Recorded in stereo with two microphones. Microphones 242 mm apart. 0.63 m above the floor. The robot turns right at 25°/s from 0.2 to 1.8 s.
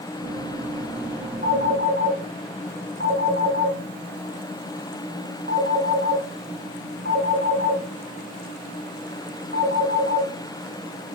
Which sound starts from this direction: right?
A phone ringing, at 1.4 s.